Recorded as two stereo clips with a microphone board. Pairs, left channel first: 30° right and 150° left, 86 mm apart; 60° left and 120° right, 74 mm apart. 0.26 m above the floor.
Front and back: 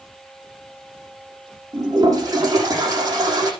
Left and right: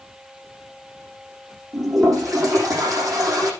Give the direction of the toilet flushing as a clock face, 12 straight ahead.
5 o'clock.